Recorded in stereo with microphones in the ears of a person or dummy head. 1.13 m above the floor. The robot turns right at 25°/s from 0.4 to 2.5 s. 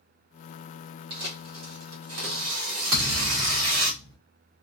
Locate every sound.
1.1 s tearing paper: 130° right, 1.4 m; by 3.9 s 95° right, 1.4 m
2.9 s a thud: 60° right (ahead or behind), 1.1 m